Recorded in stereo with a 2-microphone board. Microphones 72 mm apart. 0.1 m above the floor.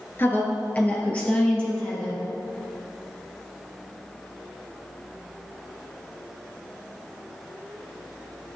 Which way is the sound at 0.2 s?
30° left (ahead or behind).